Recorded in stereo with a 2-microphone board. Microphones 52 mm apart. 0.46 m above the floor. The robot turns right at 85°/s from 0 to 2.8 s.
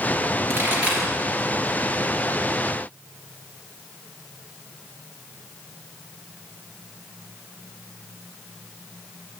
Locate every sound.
0.5 s a pop: 55° right (ahead or behind), 3.5 m; by 1.1 s centre (ahead or behind), 3.5 m